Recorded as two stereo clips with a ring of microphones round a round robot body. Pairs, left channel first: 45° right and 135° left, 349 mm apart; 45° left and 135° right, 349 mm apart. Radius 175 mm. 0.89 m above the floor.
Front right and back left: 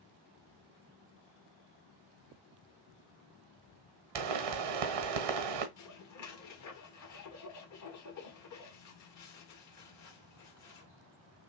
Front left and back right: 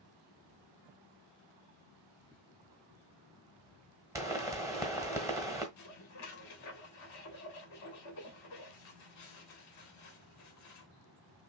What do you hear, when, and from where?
4.2 s a pop: 145° left, 1.3 m
5.8 s dishes clattering: straight ahead, 1.4 m